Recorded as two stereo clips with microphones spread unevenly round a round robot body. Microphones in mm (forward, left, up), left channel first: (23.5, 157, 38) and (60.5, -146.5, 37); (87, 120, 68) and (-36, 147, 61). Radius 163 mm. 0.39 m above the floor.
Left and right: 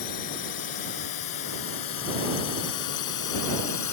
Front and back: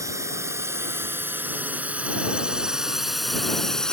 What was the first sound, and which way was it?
A drone, 105° left.